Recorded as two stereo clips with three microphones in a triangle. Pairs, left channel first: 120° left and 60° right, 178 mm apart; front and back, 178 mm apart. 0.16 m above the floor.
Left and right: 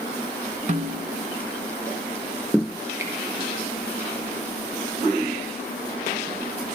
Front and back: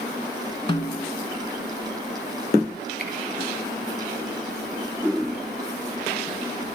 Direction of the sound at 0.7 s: 45° right.